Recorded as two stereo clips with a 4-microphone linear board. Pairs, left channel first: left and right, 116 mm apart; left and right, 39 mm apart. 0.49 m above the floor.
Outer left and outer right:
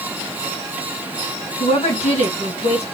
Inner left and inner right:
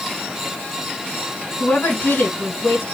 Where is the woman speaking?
70° left (ahead or behind), 4 m.